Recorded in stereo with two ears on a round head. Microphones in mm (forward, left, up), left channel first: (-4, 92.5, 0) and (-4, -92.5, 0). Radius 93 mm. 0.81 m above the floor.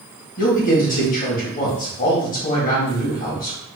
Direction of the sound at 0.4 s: 40° left (ahead or behind).